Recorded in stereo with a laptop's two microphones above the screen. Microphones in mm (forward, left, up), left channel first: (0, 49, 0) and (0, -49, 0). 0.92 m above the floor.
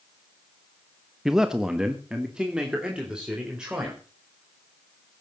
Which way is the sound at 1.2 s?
5° right (ahead or behind).